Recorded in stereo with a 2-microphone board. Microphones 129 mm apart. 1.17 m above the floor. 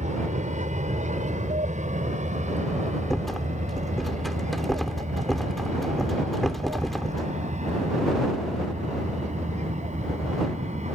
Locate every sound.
0.0 s an aircraft: 70° right (ahead or behind); by 11.0 s 65° right (ahead or behind)
3.1 s a rattle: centre (ahead or behind)